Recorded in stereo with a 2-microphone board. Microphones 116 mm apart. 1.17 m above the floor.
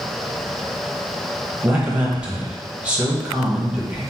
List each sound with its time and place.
1.6 s a man speaking: 10° right (ahead or behind), 1.1 m